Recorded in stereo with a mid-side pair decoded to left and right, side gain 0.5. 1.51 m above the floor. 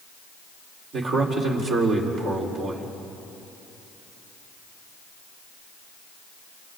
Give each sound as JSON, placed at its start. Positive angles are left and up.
{"t": 0.9, "sound": "a man speaking", "azimuth_deg": -60, "distance_m": 4.5}